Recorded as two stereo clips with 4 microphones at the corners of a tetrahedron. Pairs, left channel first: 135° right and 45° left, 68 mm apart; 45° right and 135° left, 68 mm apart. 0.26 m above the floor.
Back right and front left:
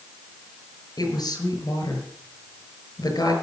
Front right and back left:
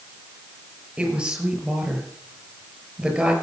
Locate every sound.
1.0 s a woman speaking: 150° right, 5.5 m